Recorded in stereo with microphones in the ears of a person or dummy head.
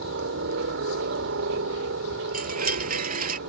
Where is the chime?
40° right (ahead or behind).